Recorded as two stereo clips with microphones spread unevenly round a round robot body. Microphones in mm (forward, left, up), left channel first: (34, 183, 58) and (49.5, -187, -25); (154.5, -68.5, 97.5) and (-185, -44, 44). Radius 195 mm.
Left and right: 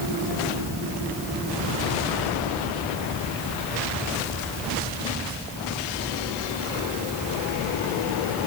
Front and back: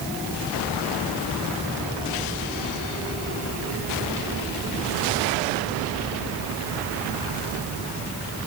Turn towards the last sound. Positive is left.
No sound to turn to.